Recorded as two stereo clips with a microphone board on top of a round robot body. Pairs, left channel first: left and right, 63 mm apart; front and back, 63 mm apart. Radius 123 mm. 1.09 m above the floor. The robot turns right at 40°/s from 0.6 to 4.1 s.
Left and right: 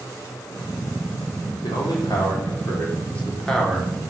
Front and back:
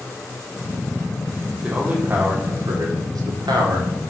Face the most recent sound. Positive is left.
turn(degrees=-160)